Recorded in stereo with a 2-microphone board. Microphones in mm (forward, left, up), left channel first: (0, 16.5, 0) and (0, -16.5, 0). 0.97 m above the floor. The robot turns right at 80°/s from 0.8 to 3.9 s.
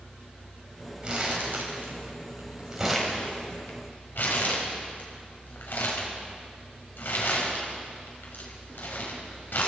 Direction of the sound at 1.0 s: 30° right (ahead or behind).